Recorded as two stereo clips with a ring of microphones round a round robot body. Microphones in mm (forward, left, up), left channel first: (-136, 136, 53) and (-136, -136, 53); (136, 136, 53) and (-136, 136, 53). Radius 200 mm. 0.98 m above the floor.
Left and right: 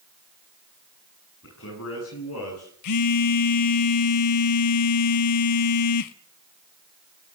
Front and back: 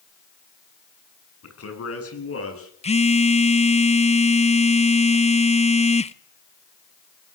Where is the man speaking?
30° left, 9 m; by 2.7 s 40° left, 10.5 m.